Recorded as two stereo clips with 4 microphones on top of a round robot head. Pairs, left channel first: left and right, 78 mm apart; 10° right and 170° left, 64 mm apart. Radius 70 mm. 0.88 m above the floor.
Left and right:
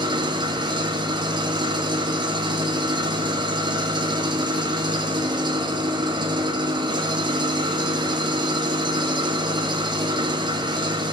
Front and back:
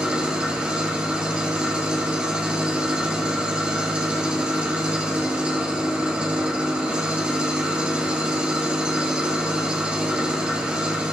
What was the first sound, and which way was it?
An engine running, 115° right.